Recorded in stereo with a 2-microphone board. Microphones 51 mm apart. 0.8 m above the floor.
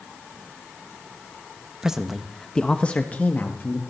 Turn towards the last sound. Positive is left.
turn(degrees=40)  # may be behind; listen again after turning